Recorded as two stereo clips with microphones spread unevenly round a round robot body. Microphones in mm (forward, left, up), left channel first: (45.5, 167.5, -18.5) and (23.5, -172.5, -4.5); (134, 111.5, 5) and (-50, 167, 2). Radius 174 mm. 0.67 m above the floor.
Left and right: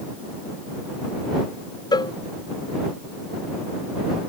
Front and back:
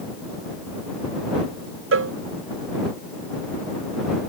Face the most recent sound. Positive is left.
turn(degrees=165)